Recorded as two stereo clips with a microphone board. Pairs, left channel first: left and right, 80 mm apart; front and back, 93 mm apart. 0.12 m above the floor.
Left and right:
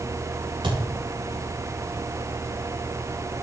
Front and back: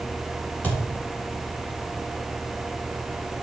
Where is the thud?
75° right, 3.5 m.